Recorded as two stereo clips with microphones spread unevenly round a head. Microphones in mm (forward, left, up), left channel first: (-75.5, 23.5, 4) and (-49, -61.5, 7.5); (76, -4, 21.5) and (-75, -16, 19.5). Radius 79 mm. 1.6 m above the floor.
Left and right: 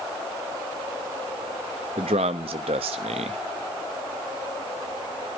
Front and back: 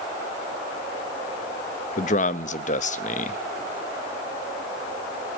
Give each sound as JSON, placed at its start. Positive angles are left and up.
{"t": 2.0, "sound": "a man speaking", "azimuth_deg": -35, "distance_m": 0.7}